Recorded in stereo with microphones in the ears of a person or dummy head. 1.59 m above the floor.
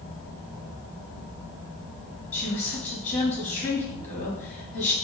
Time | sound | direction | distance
2.3 | a woman speaking | 10° left (ahead or behind) | 3 m